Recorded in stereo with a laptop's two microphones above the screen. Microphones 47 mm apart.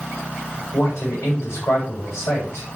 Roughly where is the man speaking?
Left.